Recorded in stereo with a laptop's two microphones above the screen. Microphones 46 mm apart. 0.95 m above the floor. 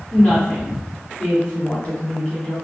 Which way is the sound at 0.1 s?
25° left (ahead or behind).